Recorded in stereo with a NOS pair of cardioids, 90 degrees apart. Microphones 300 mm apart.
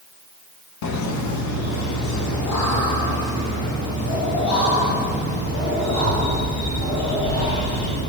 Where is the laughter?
65° left, 1.4 m; by 8.0 s 70° left, 10.5 m.